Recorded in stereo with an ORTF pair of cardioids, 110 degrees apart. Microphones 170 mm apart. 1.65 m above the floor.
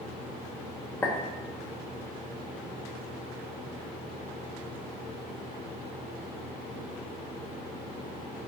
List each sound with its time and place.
1.0 s a clink: 15° left, 2 m